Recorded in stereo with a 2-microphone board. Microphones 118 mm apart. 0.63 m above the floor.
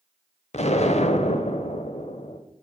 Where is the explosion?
65° left (ahead or behind), 0.6 m.